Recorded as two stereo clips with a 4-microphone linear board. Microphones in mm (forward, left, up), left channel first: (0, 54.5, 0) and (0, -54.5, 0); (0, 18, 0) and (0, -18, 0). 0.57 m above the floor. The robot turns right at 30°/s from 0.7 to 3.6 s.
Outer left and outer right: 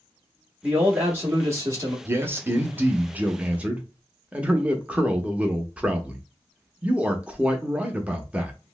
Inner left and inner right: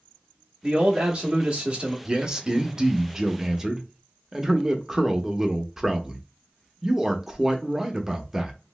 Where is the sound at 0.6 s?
160° right, 0.8 m; by 1.9 s 120° right, 0.8 m.